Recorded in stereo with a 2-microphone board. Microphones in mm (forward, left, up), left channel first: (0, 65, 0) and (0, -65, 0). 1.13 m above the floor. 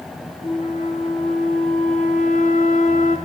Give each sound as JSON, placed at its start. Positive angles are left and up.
{"t": 0.4, "sound": "a flute", "side_deg": 70, "distance_m": 3.5}